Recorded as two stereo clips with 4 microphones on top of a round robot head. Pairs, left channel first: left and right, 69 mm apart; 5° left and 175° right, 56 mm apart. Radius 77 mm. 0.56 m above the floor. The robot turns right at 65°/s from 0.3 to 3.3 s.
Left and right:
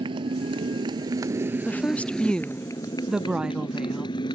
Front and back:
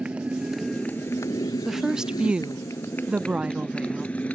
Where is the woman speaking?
100° left; by 4.1 s 150° right.